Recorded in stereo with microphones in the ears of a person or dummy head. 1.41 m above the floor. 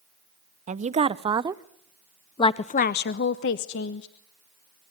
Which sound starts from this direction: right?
A woman speaking, at 0.7 s.